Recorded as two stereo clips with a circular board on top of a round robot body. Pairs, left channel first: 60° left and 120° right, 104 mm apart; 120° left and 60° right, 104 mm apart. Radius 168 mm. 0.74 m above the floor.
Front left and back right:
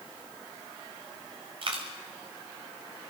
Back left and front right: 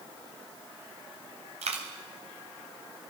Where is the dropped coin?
80° right, 0.9 m.